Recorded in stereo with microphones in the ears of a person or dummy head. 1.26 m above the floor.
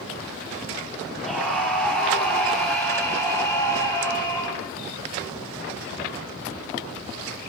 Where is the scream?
Centre (ahead or behind), 9 m; by 4.6 s 25° left (ahead or behind), 9.5 m.